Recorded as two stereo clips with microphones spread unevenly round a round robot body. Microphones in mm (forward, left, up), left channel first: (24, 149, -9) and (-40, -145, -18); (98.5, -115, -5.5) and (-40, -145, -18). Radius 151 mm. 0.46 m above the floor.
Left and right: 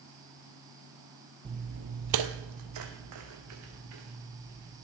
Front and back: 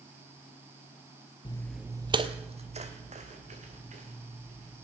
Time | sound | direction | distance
1.4 | footsteps | 30° right | 0.6 m